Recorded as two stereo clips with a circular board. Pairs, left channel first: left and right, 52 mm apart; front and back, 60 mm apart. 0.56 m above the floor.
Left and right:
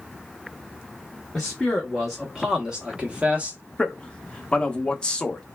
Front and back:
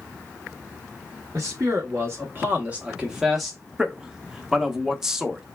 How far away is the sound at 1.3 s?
About 1.2 m.